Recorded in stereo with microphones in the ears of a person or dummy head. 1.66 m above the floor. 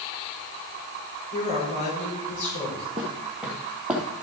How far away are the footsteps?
About 1.7 m.